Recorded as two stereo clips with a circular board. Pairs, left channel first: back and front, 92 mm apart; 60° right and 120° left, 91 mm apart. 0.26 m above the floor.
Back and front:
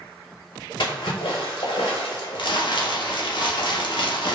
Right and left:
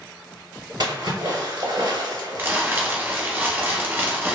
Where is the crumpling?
175° right, 0.6 m.